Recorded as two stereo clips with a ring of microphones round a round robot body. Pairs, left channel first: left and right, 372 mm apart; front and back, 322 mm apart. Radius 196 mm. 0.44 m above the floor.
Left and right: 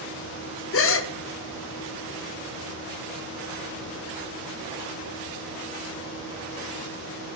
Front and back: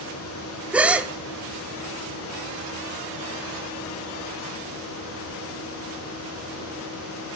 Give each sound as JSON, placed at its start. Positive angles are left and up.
{"t": 0.7, "sound": "a gasp", "azimuth_deg": 95, "distance_m": 0.7}